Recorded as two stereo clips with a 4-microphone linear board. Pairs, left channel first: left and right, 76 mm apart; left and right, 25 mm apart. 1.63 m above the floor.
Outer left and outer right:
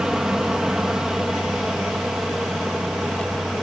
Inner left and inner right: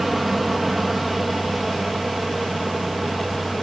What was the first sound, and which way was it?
An aircraft, 10° right (ahead or behind).